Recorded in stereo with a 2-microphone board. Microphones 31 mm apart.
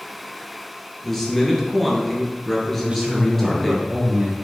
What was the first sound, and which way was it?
A man speaking, 10° left (ahead or behind).